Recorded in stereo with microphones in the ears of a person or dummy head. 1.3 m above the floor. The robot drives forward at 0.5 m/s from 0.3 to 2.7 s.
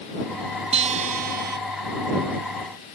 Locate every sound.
0.7 s a guitar: 35° right (ahead or behind); by 1.6 s 45° right (ahead or behind)